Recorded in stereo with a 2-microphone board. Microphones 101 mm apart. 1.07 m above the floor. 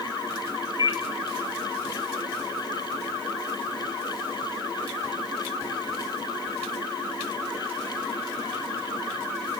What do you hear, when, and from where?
0.8 s a microwave: 40° right (ahead or behind), 1.5 m